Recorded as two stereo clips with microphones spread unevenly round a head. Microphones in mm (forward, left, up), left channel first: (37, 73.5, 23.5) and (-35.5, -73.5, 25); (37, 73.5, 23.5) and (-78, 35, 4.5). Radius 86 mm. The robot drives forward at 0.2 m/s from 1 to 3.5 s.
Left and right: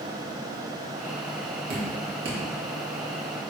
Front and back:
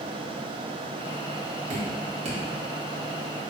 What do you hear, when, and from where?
1.7 s dripping: 140° right, 2 m; by 2.4 s 145° right, 2 m